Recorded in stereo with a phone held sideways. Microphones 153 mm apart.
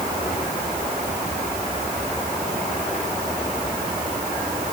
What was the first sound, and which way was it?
Only background noise.